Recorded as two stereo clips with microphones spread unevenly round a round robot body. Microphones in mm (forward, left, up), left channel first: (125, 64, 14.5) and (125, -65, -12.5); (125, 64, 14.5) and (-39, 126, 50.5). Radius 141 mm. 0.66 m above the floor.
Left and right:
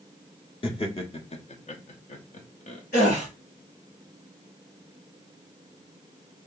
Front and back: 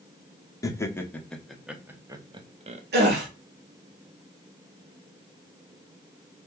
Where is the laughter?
40° left, 1.5 m; by 2.8 s 115° left, 1.0 m.